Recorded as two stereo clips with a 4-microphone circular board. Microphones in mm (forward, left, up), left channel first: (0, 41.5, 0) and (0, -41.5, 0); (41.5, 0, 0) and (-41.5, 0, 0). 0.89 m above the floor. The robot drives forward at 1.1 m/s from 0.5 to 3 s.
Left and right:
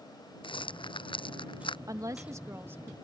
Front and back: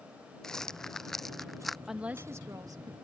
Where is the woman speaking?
95° right; by 2.9 s 155° right.